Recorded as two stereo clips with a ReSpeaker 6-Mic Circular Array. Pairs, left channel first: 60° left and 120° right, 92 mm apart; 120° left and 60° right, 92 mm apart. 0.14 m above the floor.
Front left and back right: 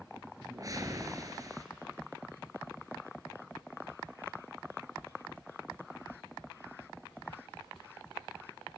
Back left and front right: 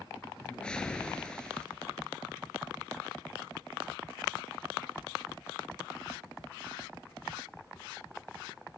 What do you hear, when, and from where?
0.4 s a whoosh: 160° right, 1.6 m